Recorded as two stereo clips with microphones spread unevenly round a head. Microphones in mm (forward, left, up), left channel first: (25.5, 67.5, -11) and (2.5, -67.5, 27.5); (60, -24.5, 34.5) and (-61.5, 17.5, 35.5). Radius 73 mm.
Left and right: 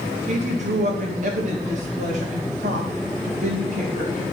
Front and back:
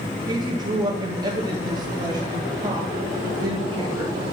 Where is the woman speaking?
140° right, 1.6 m.